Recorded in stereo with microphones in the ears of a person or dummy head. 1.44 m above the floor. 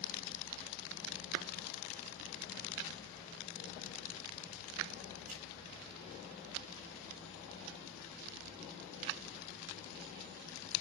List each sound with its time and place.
5.3 s a clap: 50° right (ahead or behind), 5.5 m